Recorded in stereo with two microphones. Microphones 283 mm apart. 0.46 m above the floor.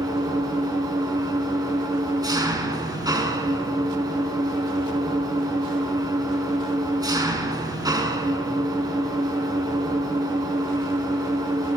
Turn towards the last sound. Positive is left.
turn(degrees=-15)  # may be behind; listen again after turning